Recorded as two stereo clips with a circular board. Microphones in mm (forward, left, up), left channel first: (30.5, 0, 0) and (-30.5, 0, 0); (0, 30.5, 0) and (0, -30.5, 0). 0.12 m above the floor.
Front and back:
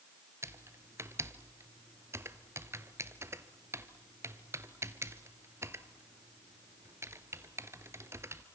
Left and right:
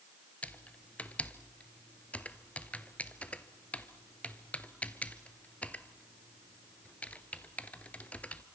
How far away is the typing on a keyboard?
About 1.1 m.